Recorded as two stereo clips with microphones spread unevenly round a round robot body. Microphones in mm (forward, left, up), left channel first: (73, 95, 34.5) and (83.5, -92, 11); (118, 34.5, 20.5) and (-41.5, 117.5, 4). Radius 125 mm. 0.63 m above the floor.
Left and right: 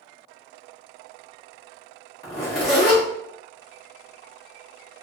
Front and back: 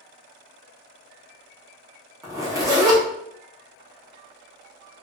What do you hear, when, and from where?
2.2 s a zipper: 95° left, 1.2 m